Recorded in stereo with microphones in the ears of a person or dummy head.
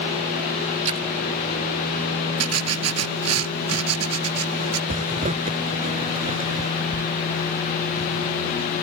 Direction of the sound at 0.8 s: 45° right (ahead or behind).